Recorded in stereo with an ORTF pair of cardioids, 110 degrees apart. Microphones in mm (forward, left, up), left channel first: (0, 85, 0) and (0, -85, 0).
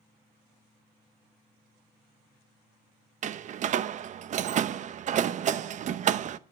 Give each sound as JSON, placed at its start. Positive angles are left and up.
{"t": 3.2, "sound": "a door slam", "azimuth_deg": -45, "distance_m": 0.7}